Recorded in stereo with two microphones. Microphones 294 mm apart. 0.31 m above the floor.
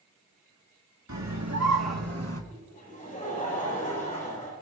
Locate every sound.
1.1 s a scream: 75° right (ahead or behind), 3.5 m; by 2.4 s 55° right (ahead or behind), 2.5 m
2.5 s laughter: 25° left (ahead or behind), 9.5 m